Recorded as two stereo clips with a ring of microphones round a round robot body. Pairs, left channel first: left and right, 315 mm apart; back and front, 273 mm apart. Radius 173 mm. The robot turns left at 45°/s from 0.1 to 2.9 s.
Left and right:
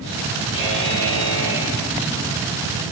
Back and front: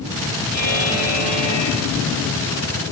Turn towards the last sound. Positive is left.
turn(degrees=55)